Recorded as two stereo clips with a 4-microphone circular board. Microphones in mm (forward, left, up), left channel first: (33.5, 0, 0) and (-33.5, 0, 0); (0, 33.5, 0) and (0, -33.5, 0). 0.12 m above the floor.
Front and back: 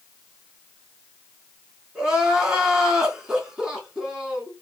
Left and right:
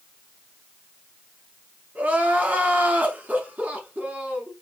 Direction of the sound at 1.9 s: 115° right.